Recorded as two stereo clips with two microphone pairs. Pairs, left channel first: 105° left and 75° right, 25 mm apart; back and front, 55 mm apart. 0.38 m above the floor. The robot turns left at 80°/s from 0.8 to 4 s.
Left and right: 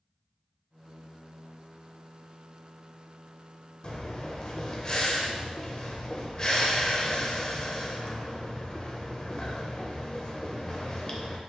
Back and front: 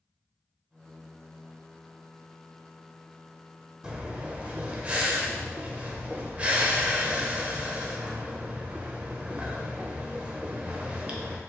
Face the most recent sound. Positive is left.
turn(degrees=55)